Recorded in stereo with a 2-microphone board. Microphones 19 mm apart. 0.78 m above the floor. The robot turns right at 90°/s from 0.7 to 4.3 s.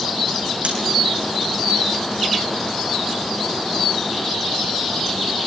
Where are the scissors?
80° right, 8.5 m; by 0.8 s 85° right, 8.5 m.